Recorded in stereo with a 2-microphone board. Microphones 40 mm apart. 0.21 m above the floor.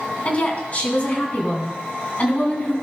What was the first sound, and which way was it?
A woman speaking, 35° left (ahead or behind).